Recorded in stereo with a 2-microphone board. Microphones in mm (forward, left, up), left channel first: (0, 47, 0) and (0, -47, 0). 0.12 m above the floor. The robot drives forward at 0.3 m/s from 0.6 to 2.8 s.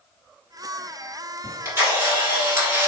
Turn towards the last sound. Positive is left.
turn(degrees=-25)  # may be behind; listen again after turning